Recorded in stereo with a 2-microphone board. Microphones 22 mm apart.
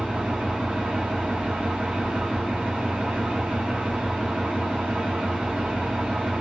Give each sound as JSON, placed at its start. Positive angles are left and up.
{"t": 0.0, "sound": "an engine running", "side_deg": -85, "distance_m": 1.0}